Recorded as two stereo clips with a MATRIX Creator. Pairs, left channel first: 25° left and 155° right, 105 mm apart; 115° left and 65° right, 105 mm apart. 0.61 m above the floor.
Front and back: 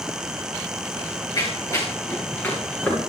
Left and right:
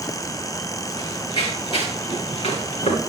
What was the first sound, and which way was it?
Running footsteps, 65° left.